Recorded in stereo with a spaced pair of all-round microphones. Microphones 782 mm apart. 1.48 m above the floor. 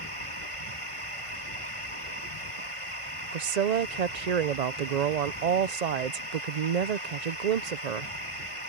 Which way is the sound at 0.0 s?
40° left (ahead or behind).